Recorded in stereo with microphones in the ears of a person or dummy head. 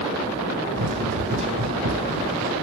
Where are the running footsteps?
60° right (ahead or behind), 2.5 m; by 2.5 s 55° right (ahead or behind), 3 m.